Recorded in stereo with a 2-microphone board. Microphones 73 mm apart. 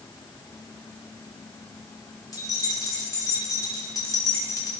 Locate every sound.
2.3 s keys jangling: 55° left (ahead or behind), 2.5 m